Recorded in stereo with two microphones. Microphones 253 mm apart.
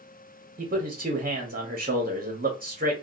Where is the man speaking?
35° right (ahead or behind), 0.7 m.